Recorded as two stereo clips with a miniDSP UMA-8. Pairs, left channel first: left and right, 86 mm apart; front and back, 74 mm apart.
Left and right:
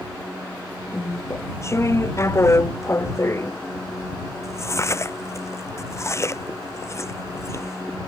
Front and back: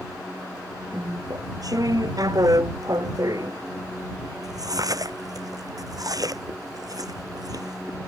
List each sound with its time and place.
0.9 s chewing: 145° left